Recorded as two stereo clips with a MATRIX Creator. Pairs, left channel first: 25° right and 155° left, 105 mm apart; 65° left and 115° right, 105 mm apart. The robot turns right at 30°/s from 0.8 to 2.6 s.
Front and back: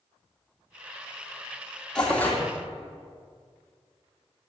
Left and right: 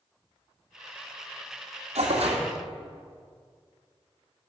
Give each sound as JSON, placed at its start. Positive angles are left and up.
{"t": 1.9, "sound": "tearing paper", "azimuth_deg": -105, "distance_m": 1.8}